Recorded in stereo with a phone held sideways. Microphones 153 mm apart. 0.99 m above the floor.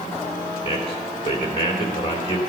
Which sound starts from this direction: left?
A man speaking, at 0.6 s.